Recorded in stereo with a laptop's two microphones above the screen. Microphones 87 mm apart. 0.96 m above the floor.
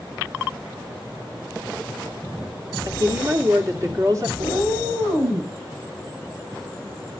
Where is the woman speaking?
40° right (ahead or behind), 2.5 m.